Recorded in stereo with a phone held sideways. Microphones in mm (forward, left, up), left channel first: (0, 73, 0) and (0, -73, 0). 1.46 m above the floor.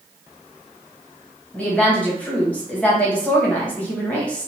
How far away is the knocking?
I don't hear knocking.